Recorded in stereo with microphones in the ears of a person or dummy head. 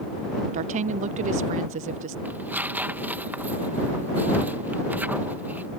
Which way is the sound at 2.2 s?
10° right (ahead or behind).